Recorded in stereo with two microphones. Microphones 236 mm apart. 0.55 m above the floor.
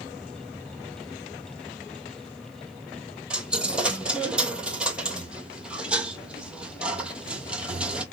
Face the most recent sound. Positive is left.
turn(degrees=-5)  # may be behind; listen again after turning